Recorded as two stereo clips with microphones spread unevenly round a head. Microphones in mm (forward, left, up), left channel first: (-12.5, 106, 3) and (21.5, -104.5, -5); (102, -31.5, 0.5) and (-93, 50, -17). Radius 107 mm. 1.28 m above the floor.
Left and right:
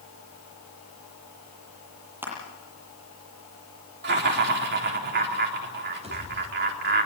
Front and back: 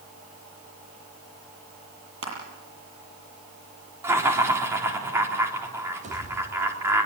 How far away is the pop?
About 4.5 m.